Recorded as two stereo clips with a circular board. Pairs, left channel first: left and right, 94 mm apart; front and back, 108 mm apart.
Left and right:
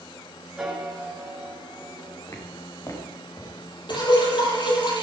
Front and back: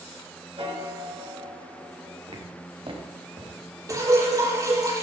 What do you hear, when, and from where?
0.6 s a piano: 175° right, 3 m
2.3 s footsteps: 145° left, 4.5 m; by 4.5 s 135° left, 3 m
3.9 s dripping: 120° left, 7 m